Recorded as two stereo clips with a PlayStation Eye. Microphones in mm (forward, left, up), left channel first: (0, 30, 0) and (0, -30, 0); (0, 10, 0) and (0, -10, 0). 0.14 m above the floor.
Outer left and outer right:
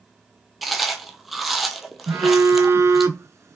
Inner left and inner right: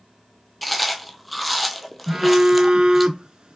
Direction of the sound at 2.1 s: 55° right (ahead or behind).